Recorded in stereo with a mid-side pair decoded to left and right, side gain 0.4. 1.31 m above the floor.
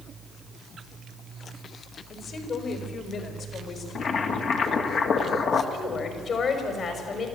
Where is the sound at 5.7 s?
60° left, 5 m.